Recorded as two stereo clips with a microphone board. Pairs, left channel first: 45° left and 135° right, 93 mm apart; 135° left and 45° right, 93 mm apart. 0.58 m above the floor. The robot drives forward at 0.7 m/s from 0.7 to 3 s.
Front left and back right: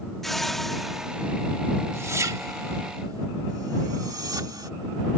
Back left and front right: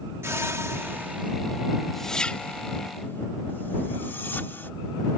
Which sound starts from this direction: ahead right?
A whoosh, at 0.2 s.